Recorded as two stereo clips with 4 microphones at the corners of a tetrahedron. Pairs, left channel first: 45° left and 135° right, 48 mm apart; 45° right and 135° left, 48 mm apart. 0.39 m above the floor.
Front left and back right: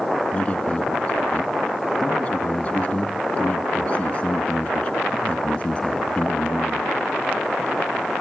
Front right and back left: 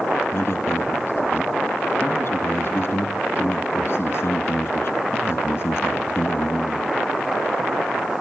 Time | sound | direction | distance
0.3 | a man speaking | 10° right | 4.5 m